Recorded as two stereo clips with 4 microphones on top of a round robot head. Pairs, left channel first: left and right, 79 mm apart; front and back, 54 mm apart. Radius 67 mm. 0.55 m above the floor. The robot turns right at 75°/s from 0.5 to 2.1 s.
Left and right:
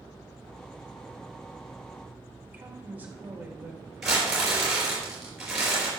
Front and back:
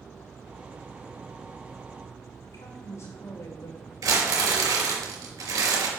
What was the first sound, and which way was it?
A woman speaking, 25° right.